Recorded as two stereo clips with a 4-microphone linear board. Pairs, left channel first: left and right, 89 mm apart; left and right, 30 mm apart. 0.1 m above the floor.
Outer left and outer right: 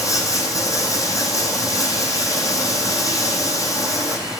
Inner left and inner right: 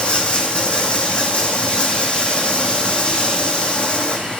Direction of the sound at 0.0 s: 40° left (ahead or behind).